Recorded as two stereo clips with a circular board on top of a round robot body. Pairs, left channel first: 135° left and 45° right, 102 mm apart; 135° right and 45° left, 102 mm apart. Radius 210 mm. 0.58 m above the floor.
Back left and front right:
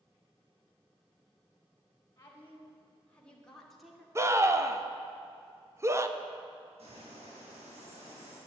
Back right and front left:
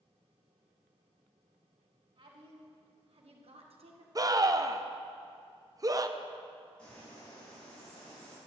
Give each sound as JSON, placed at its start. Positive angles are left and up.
{"t": 2.2, "sound": "a woman speaking", "azimuth_deg": 70, "distance_m": 3.5}
{"t": 4.2, "sound": "a scream", "azimuth_deg": 5, "distance_m": 1.4}
{"t": 6.8, "sound": "a bird", "azimuth_deg": -55, "distance_m": 7.0}